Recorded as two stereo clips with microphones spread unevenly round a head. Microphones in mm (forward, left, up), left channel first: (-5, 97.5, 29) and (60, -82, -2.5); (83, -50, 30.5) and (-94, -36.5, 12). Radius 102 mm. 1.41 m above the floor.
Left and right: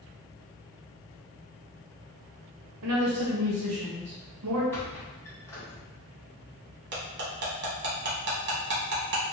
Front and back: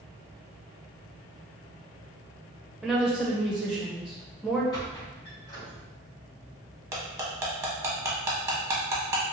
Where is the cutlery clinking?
110° right, 0.9 m.